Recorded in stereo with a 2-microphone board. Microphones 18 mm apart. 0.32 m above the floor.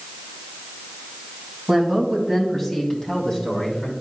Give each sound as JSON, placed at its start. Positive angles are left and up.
{"t": 1.7, "sound": "a man speaking", "side_deg": -15, "distance_m": 2.0}